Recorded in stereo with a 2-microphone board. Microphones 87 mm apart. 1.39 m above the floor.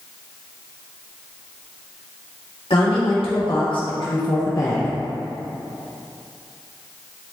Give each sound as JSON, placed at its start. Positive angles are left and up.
{"t": 2.7, "sound": "a woman speaking", "side_deg": 85, "distance_m": 2.0}